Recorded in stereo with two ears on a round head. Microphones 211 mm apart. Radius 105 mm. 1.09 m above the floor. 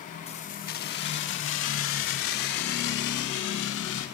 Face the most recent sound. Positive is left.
turn(degrees=70)  # may be behind; listen again after turning